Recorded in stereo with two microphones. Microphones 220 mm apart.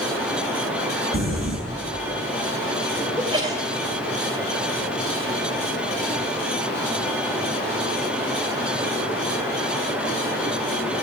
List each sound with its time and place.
0.0 s running water: 5° right (ahead or behind), 3 m
1.1 s crumpling: 70° left (ahead or behind), 5 m
3.2 s a sneeze: 20° right (ahead or behind), 2 m